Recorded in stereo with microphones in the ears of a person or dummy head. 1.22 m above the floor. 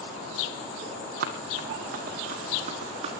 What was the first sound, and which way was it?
Running footsteps, 60° right (ahead or behind).